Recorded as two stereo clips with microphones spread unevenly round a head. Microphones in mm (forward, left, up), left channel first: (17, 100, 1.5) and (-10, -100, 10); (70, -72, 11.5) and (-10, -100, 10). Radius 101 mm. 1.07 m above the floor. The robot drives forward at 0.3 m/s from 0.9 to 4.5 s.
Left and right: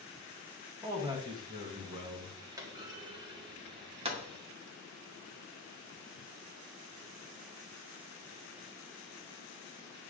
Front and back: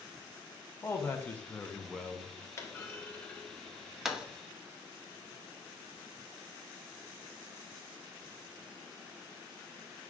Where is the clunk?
25° right, 0.8 m; by 4.2 s 95° right, 0.6 m.